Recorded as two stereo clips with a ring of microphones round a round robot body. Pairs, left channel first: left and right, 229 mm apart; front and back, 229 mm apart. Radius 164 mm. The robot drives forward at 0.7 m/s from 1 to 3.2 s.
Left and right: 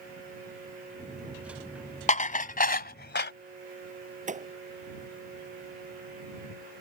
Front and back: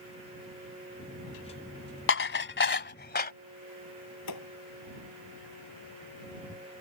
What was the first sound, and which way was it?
Dishes clattering, 30° left.